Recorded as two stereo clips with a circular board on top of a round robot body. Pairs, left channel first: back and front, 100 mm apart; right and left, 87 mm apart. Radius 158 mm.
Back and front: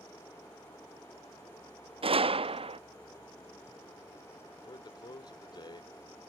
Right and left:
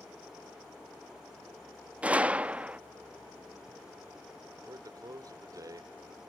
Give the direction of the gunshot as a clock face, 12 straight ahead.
11 o'clock.